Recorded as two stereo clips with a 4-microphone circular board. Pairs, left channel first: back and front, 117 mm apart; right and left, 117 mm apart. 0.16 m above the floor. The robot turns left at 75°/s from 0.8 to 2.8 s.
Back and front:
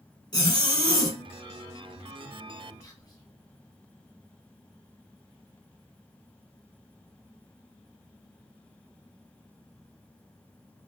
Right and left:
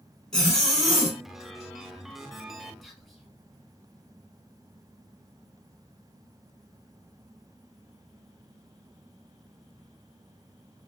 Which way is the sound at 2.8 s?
Straight behind.